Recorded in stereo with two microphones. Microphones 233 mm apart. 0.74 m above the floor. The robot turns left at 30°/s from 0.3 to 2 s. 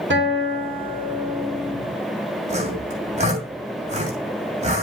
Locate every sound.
0.1 s a guitar: 125° right, 2.5 m; by 1.8 s 170° right, 2.5 m
2.5 s sawing: 30° right (ahead or behind), 3 m